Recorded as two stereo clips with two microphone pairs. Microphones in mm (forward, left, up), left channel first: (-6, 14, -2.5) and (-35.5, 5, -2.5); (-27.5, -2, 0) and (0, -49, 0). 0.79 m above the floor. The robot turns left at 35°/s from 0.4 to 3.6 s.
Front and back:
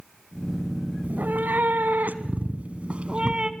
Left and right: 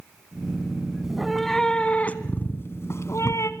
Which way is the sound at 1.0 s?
140° right.